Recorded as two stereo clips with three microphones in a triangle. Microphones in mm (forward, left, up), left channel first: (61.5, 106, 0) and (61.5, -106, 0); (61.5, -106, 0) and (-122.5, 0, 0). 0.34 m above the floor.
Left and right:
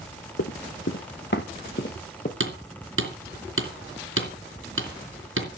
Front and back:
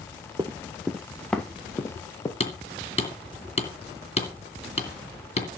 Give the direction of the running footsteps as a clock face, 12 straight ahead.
9 o'clock.